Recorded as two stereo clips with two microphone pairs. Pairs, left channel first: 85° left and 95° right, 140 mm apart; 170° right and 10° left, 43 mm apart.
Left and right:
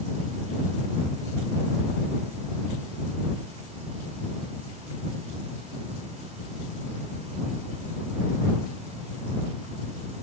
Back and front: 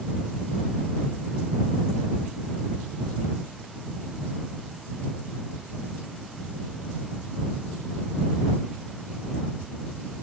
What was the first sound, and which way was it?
Only background noise.